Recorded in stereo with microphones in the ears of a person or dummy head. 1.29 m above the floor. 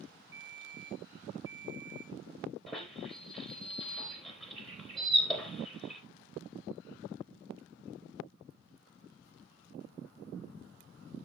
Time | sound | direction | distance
0.3 | a ringtone | 25° right (ahead or behind) | 3 m
2.7 | a squeak | centre (ahead or behind) | 3.5 m